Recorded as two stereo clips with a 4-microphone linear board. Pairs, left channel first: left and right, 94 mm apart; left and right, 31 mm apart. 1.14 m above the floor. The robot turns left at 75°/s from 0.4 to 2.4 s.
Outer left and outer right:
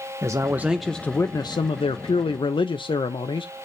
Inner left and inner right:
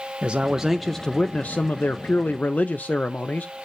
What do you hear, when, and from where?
0.2 s a man speaking: 150° right, 0.5 m; by 3.7 s 60° left, 0.5 m